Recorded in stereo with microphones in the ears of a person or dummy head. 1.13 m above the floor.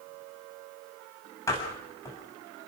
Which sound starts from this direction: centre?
A door slam, at 1.5 s.